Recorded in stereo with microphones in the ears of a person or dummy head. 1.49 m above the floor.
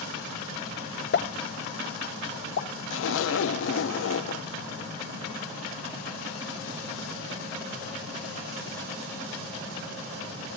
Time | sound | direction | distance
1.1 | a pop | 60° left (ahead or behind) | 1.2 m
2.9 | a zipper | 80° left | 0.9 m